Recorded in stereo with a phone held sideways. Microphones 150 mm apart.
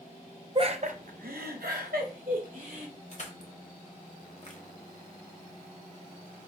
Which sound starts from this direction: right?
Laughter, at 0.6 s.